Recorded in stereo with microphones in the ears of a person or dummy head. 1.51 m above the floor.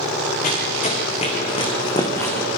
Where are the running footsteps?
50° left (ahead or behind), 5 m; by 2.5 s 15° left (ahead or behind), 4 m.